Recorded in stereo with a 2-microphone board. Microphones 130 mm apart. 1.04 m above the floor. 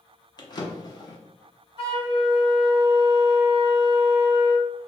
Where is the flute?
45° left (ahead or behind), 1.3 m.